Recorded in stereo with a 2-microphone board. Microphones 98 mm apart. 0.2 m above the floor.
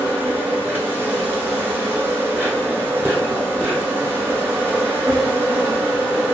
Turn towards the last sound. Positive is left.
turn(degrees=-20)  # may be behind; listen again after turning